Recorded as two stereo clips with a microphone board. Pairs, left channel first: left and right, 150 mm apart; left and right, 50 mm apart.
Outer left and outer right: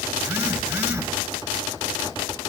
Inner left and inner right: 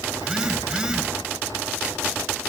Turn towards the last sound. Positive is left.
turn(degrees=-10)  # may be behind; listen again after turning